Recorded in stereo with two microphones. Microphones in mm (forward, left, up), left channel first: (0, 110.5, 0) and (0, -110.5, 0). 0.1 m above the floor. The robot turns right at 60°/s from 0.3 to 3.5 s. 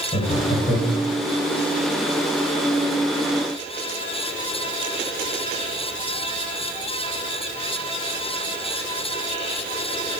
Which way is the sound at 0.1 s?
25° left (ahead or behind).